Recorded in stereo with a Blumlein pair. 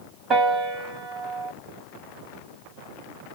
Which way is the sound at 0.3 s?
25° right.